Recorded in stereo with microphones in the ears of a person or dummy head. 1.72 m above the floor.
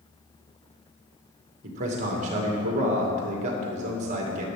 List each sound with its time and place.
1.6 s a man speaking: 40° right (ahead or behind), 2.5 m